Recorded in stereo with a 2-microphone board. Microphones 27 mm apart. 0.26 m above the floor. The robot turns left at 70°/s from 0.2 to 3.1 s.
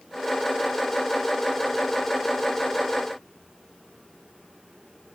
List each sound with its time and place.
Only background noise.